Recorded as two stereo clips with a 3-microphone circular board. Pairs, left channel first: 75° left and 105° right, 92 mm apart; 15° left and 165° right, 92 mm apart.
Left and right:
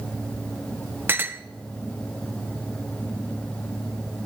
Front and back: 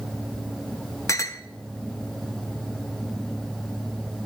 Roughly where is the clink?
Ahead right.